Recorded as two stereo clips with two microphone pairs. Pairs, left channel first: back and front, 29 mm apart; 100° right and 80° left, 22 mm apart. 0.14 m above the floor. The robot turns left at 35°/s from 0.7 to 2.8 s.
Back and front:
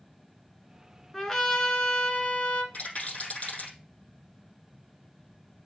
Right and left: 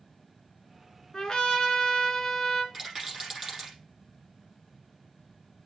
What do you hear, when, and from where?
1.1 s a trumpet: 120° right, 1.4 m; by 2.6 s 175° right, 1.4 m
2.7 s a rattle: 150° left, 5.5 m; by 3.8 s 145° left, 5.5 m